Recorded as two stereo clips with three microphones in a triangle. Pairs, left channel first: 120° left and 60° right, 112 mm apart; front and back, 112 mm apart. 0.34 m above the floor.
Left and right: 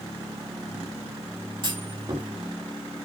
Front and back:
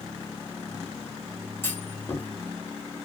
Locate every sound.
1.6 s a clunk: 60° right, 1.9 m